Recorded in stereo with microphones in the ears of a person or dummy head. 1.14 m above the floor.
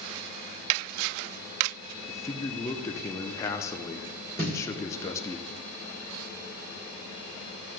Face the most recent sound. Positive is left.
turn(degrees=-45)  # may be behind; listen again after turning